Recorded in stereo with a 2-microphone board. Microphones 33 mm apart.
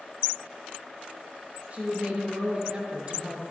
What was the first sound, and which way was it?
A woman speaking, 45° right (ahead or behind).